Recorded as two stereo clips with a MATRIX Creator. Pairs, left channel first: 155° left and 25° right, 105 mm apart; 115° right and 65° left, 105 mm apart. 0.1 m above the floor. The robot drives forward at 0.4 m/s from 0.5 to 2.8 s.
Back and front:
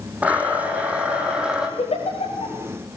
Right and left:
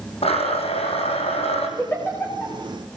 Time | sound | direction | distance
0.2 | a blender | 100° right | 5 m
1.8 | a giggle | straight behind | 8.5 m